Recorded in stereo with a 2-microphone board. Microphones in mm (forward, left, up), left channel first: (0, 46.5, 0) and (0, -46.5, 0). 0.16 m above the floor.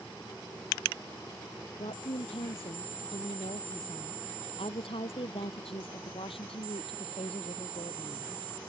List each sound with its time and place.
1.8 s a woman speaking: 75° left (ahead or behind)